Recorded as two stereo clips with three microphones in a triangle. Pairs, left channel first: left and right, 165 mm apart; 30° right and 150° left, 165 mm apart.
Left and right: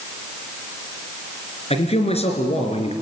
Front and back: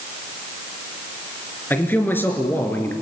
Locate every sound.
1.7 s a man speaking: 45° left, 3.5 m